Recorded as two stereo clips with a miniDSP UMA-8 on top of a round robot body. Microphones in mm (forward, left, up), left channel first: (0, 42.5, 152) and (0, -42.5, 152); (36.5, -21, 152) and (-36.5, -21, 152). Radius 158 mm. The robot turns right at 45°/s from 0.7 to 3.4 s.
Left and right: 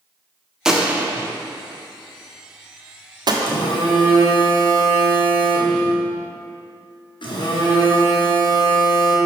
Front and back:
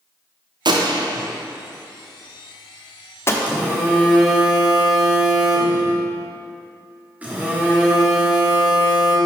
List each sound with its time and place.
0.7 s a gunshot: 170° right, 1.0 m; by 3.3 s 55° right, 1.0 m
3.4 s a phone buzzing: 110° left, 1.7 m